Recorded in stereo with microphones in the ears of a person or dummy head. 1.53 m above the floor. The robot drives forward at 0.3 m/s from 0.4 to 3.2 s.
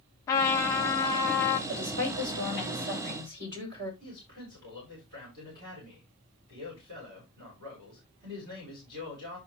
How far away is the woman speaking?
About 8 m.